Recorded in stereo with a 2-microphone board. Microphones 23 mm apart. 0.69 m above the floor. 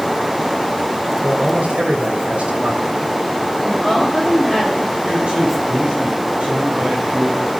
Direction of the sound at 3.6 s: 20° right (ahead or behind).